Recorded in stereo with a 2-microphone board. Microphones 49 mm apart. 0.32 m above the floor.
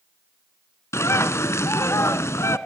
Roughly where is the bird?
Left.